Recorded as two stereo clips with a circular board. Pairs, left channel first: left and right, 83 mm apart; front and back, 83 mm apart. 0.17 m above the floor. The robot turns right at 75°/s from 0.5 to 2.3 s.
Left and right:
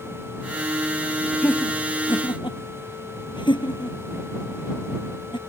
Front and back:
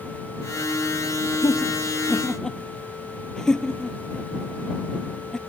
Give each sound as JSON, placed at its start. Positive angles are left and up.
{"t": 1.4, "sound": "laughter", "azimuth_deg": 15}